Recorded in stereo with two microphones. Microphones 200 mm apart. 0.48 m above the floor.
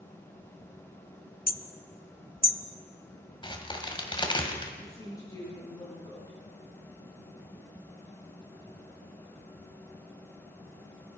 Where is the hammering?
50° left (ahead or behind), 0.6 m.